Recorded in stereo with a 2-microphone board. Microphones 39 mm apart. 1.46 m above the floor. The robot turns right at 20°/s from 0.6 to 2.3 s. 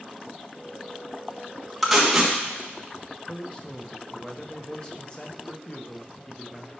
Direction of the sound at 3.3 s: 25° left (ahead or behind).